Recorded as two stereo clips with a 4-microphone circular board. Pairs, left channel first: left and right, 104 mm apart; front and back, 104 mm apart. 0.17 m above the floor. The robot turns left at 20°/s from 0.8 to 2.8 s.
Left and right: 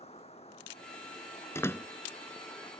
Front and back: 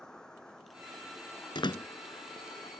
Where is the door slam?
30° left; by 1.9 s 25° left.